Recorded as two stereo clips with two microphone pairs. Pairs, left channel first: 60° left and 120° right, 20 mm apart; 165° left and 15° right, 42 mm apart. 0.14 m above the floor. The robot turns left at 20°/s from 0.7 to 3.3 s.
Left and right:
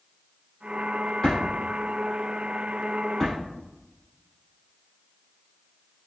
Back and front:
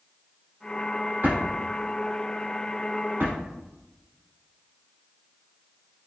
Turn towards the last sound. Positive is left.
turn(degrees=-35)